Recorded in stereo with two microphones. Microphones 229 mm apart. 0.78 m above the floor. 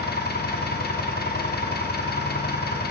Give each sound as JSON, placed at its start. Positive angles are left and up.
{"t": 0.0, "sound": "an engine running", "side_deg": 45, "distance_m": 1.0}